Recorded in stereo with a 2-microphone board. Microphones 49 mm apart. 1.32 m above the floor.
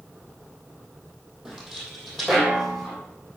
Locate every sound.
1.4 s footsteps: 10° right (ahead or behind), 3 m; by 3.0 s centre (ahead or behind), 4 m